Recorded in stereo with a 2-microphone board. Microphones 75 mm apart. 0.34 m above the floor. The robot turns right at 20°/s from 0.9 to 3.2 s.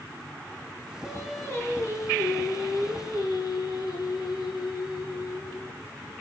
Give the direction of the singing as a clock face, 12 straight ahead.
11 o'clock.